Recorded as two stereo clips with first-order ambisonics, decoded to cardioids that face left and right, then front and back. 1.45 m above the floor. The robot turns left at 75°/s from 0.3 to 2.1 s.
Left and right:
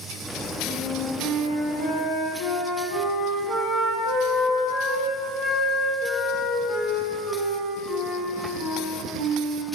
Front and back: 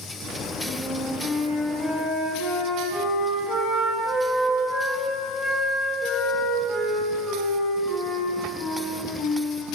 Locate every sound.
0.7 s a flute: 145° left, 1.0 m; by 9.7 s 35° left, 1.0 m